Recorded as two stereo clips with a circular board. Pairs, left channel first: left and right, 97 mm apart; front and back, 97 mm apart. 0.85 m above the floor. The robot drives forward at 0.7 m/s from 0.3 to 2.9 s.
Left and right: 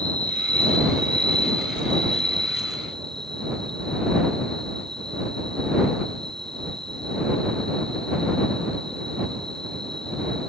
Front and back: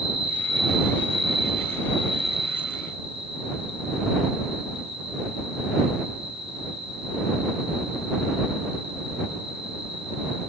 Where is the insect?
165° left; by 10.5 s 175° left.